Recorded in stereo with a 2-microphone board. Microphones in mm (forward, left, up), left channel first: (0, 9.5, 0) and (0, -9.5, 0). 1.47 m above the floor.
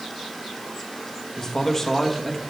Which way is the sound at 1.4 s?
30° left (ahead or behind).